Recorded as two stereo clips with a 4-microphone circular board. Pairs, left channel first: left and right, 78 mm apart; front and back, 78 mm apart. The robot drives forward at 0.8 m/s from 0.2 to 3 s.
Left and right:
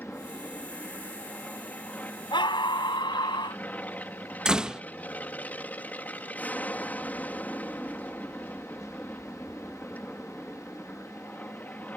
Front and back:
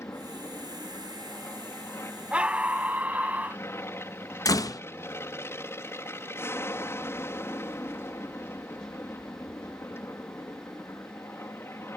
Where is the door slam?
15° right.